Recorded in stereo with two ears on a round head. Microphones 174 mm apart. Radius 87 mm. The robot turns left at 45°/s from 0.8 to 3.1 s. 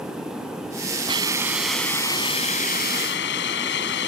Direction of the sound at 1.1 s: 155° right.